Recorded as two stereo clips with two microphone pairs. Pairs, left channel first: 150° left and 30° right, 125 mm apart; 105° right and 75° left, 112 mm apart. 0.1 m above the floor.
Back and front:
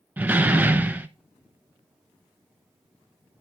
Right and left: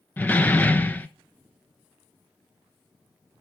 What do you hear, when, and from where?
0.2 s a door slam: 75° right, 0.8 m